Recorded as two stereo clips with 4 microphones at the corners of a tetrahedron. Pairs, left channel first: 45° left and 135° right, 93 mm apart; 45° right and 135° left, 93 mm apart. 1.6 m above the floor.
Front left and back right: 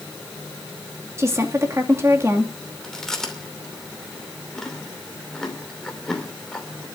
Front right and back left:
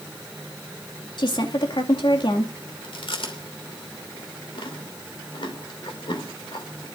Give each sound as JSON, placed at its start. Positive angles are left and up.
{"t": 1.2, "sound": "a woman speaking", "azimuth_deg": -75, "distance_m": 2.5}
{"t": 2.8, "sound": "chewing", "azimuth_deg": -40, "distance_m": 2.5}